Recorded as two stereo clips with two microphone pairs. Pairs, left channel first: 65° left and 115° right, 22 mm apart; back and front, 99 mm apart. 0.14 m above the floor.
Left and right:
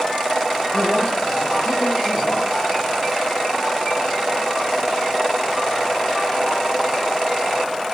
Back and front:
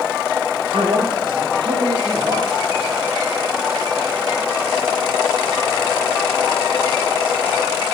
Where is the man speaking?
15° left, 2.5 m; by 2.6 s 45° left, 4.5 m.